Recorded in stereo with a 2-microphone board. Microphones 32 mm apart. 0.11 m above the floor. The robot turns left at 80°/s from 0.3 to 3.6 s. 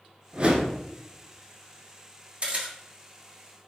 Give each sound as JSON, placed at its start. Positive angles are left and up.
{"t": 0.3, "sound": "a whoosh", "azimuth_deg": -55, "distance_m": 0.8}
{"t": 2.4, "sound": "a camera shutter", "side_deg": -35, "distance_m": 1.3}